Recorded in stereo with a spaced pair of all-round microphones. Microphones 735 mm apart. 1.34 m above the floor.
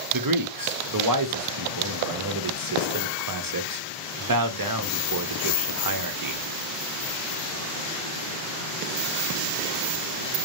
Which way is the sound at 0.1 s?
30° right (ahead or behind).